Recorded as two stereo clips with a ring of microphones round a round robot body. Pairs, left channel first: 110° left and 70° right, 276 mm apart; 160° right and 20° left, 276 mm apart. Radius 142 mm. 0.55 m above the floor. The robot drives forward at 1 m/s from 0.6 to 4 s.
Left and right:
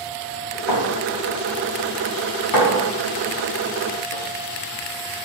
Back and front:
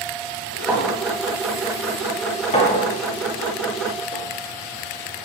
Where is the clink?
105° left, 2.5 m; by 5.2 s 150° left, 5 m.